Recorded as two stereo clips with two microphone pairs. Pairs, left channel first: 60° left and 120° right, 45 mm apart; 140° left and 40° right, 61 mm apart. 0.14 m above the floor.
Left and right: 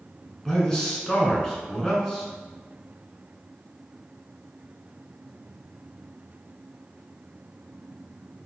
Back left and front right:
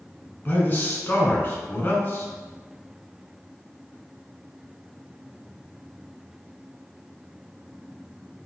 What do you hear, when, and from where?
0.5 s a man speaking: 125° left, 1.4 m